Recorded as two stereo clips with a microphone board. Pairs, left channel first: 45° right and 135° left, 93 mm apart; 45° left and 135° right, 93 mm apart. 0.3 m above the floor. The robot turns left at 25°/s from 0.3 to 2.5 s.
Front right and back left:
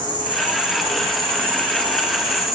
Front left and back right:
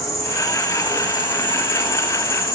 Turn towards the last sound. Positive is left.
turn(degrees=45)